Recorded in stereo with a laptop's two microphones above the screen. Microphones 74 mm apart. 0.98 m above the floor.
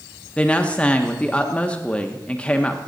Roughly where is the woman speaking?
Centre.